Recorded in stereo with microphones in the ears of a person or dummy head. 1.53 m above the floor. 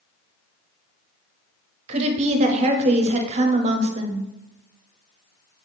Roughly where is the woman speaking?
Right.